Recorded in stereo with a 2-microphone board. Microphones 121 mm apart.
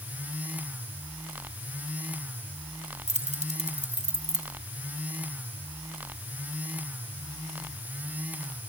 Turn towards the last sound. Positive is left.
turn(degrees=-70)  # may be behind; listen again after turning